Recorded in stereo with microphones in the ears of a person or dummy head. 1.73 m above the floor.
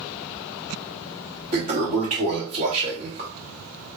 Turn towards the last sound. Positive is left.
turn(degrees=-45)  # may be behind; listen again after turning